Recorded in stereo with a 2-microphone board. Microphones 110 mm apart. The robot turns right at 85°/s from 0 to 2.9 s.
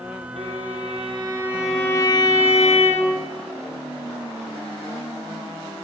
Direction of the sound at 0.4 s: 110° right.